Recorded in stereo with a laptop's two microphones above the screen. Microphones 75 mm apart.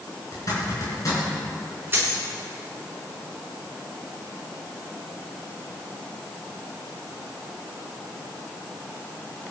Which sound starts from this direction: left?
A zipper, at 0.3 s.